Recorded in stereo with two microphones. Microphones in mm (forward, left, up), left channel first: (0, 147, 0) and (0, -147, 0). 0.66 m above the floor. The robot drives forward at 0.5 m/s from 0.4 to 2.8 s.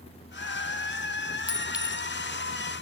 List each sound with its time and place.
1.5 s a clink: 5° right (ahead or behind), 1.7 m